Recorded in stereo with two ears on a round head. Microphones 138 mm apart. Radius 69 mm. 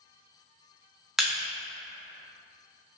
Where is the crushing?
5° right (ahead or behind), 0.7 m.